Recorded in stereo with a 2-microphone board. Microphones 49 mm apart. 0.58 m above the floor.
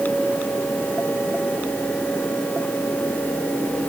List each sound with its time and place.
Only background noise.